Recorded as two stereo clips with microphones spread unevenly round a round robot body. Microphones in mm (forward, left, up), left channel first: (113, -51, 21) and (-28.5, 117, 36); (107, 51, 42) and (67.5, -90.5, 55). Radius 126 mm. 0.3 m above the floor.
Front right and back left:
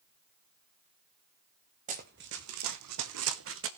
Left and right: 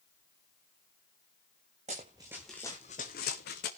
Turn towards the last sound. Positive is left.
turn(degrees=100)